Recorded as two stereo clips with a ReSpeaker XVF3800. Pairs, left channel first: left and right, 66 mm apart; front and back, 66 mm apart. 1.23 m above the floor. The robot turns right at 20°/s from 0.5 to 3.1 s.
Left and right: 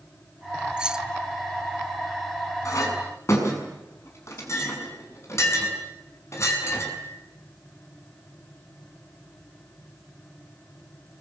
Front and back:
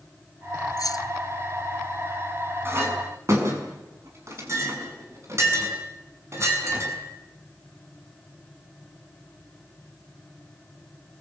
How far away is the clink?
About 6.5 m.